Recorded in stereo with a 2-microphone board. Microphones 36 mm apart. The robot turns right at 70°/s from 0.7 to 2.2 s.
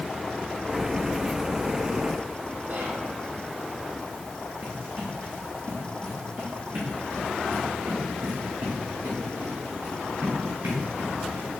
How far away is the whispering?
About 5 m.